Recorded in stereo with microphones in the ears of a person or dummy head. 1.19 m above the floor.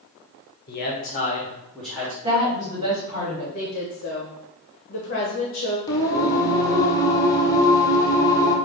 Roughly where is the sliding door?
No sliding door in this recording.